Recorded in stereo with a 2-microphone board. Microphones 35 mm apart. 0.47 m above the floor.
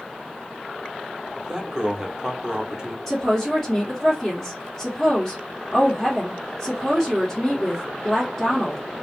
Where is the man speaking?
15° right (ahead or behind), 0.8 m.